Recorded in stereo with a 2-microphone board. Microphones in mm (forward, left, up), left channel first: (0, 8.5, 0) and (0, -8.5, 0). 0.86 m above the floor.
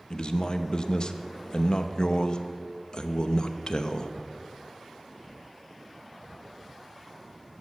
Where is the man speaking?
50° left (ahead or behind), 0.7 m.